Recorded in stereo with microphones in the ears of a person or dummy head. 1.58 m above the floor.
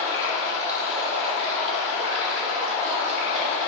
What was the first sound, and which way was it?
Running water, 35° right (ahead or behind).